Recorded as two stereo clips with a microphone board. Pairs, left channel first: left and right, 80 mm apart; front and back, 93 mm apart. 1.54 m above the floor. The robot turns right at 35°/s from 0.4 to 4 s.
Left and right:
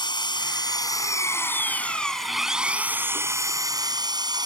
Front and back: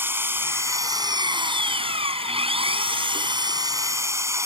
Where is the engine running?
115° left; by 4.5 s 120° right.